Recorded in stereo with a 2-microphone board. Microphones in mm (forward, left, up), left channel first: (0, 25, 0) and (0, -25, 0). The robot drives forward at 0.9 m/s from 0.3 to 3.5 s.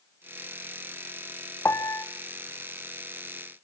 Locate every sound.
1.6 s a piano: 65° left (ahead or behind), 1.1 m; by 2.0 s 85° left, 1.0 m